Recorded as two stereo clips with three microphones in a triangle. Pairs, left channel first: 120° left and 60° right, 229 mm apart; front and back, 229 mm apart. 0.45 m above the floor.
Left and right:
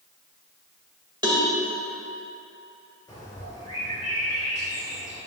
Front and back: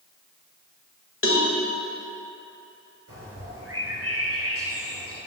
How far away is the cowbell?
About 1.6 m.